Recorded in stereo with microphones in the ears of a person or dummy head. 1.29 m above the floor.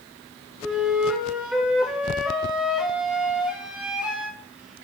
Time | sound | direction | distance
0.6 | a flute | 10° right (ahead or behind) | 1.3 m